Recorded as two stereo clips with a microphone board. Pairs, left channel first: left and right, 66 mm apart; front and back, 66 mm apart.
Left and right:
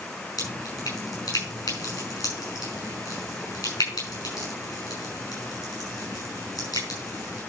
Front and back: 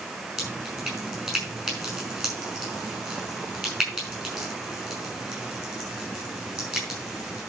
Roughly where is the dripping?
Left.